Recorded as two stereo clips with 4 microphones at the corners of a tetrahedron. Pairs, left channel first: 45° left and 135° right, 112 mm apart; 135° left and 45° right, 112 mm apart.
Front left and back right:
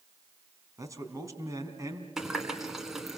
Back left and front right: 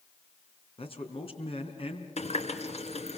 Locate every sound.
0.8 s a man speaking: 165° left, 3.5 m
2.2 s a running tap: 140° left, 2 m